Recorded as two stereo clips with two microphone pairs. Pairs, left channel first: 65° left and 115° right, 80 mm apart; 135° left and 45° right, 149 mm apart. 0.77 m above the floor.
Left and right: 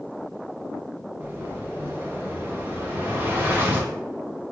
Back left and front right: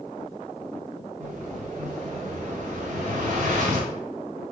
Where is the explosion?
55° right, 1.3 m.